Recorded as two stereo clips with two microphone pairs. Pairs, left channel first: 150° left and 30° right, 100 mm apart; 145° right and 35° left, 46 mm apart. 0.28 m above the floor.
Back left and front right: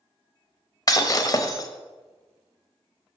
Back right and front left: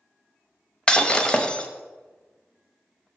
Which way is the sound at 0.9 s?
155° left.